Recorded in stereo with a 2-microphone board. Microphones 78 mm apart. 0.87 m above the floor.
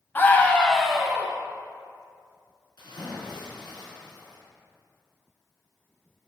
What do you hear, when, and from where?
0.1 s a scream: 30° left (ahead or behind), 0.9 m; by 1.3 s 15° right (ahead or behind), 0.8 m
2.8 s a splash: 75° left (ahead or behind), 2.5 m